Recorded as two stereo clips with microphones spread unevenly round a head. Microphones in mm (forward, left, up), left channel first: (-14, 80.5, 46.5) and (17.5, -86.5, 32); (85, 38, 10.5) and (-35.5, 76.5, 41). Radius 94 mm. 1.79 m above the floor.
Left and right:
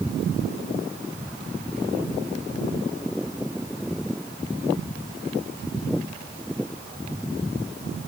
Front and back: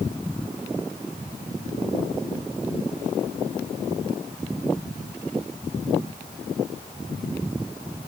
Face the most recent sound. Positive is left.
No sound to turn to.